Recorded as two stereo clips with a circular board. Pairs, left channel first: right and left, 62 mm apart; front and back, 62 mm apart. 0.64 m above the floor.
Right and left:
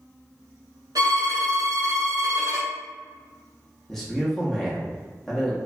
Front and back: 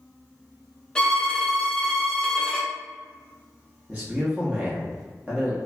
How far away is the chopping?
I don't hear chopping.